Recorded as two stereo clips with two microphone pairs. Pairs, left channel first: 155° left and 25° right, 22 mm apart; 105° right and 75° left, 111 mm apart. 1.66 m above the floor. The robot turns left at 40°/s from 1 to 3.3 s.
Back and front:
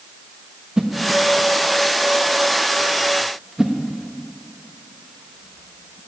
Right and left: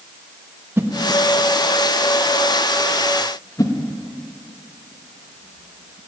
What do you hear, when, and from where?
0.8 s a whoosh: 20° left, 1.1 m; by 6.0 s 75° right, 1.1 m